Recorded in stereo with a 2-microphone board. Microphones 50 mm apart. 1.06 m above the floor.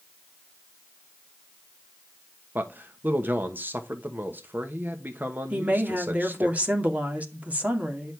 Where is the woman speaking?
30° right (ahead or behind), 2 m.